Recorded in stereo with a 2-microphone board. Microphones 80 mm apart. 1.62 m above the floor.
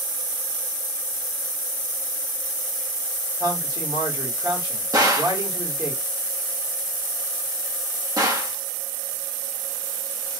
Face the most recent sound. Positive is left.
turn(degrees=-45)  # may be behind; listen again after turning